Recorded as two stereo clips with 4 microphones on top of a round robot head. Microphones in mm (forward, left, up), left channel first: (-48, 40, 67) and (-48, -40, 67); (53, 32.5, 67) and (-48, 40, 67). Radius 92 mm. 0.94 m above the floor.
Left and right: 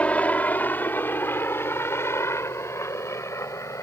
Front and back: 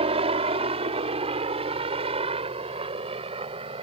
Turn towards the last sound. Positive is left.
turn(degrees=145)